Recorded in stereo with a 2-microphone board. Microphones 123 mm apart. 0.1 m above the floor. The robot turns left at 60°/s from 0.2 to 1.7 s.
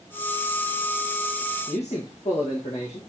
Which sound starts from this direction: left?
A man speaking, at 1.7 s.